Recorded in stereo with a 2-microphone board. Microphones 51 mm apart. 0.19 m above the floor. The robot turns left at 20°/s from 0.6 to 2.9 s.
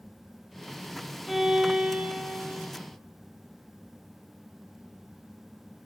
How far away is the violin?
About 1.3 m.